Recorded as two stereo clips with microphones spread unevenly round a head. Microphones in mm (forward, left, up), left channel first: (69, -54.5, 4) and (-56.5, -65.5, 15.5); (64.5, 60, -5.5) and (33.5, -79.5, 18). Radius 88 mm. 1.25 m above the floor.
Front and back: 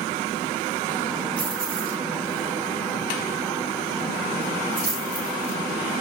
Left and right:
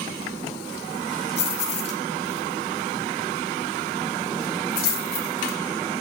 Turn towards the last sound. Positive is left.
turn(degrees=75)